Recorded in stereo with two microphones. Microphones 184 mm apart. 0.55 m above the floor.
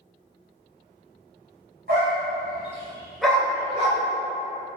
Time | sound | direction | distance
1.9 | a dog barking | 65° right (ahead or behind) | 1.0 m